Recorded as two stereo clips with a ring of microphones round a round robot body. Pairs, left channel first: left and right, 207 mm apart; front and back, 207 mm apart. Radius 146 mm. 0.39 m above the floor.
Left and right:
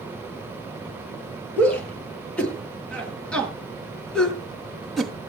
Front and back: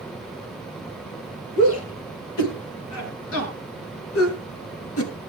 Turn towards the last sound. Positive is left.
turn(degrees=0)